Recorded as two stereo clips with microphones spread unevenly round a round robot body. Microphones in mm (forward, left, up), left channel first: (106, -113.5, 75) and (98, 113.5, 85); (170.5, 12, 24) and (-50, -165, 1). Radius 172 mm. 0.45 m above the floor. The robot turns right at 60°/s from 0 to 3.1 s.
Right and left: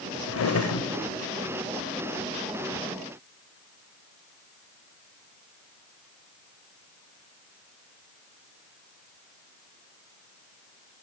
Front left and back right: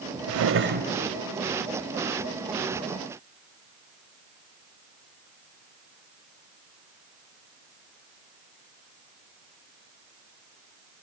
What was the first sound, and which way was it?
A drawer, 115° right.